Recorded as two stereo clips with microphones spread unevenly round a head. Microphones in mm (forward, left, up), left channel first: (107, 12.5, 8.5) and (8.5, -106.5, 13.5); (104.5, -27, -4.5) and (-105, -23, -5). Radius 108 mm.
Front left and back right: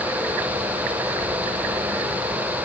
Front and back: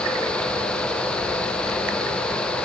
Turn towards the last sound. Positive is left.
No sound to turn to.